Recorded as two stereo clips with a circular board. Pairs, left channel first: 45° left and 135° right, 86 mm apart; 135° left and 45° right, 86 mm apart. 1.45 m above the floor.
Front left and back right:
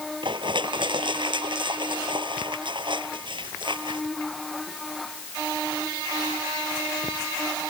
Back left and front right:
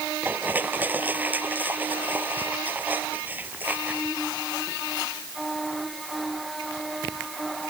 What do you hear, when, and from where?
0.2 s crushing: 115° right